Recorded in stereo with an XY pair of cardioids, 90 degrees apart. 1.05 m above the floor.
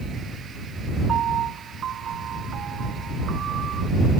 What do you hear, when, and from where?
1.1 s a piano: 65° right